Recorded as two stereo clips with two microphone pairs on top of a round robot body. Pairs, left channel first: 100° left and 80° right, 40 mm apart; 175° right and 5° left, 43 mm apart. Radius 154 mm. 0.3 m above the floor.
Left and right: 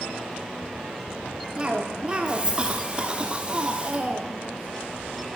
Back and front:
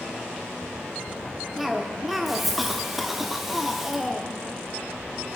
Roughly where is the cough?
Ahead right.